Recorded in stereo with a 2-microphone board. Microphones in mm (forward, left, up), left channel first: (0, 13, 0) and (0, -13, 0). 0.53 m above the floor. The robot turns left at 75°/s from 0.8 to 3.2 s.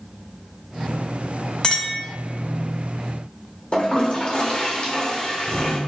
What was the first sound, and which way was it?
A clink, 155° left.